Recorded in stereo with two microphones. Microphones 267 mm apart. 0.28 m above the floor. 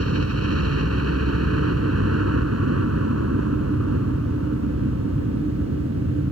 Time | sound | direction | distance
0.0 | a helicopter | 60° right (ahead or behind) | ?